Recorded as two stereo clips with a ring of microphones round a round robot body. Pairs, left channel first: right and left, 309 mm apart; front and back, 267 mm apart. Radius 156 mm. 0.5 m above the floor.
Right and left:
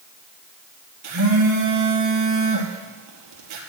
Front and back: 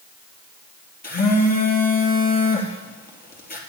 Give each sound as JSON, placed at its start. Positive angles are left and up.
{"t": 1.0, "sound": "a phone buzzing", "azimuth_deg": 55, "distance_m": 2.5}